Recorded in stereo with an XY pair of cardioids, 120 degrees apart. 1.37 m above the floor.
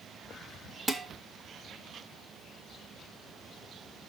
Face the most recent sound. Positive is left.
turn(degrees=-20)